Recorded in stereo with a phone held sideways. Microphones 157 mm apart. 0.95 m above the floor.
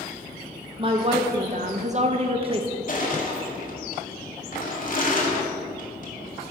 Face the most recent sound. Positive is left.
turn(degrees=55)  # may be behind; listen again after turning